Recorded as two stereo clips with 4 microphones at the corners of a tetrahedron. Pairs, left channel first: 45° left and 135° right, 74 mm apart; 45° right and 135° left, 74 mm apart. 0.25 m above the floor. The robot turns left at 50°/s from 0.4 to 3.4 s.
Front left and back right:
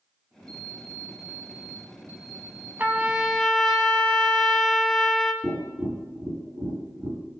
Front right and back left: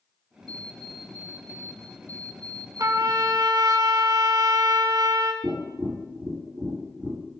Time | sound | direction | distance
0.5 | an alarm clock | 120° right | 1.1 m
2.8 | a trumpet | 165° left | 0.5 m
5.4 | tapping | 175° right | 3 m